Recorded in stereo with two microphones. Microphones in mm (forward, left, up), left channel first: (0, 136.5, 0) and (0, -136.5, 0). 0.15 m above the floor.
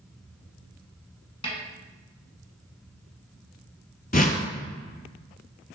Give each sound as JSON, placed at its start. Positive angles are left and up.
{"t": 1.4, "sound": "a snare drum", "side_deg": 20, "distance_m": 1.1}
{"t": 4.1, "sound": "a whoosh", "side_deg": 30, "distance_m": 0.6}